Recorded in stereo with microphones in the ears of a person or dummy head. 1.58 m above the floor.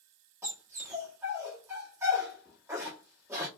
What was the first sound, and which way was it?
A dog barking, 15° right (ahead or behind).